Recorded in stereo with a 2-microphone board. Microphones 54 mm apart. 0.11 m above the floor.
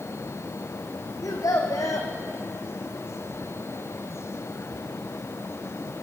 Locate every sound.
1.2 s a child speaking: 75° left (ahead or behind), 3.5 m